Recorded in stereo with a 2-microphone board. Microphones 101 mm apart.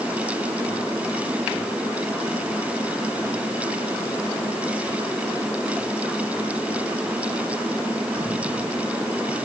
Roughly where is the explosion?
No explosion in this recording.